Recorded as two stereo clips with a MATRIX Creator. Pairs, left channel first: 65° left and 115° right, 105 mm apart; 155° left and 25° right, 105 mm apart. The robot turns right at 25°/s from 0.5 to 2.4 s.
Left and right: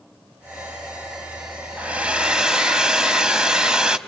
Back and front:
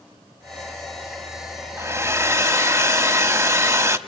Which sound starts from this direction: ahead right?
A hair dryer, at 1.8 s.